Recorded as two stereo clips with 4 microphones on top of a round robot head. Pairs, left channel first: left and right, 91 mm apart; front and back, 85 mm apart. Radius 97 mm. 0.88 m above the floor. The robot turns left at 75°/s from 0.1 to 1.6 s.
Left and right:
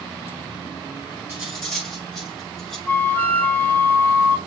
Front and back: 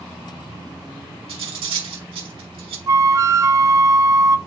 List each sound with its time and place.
1.3 s cutlery clinking: 160° right, 3 m; by 2.8 s straight behind, 3 m
2.9 s a flute: 150° left, 0.7 m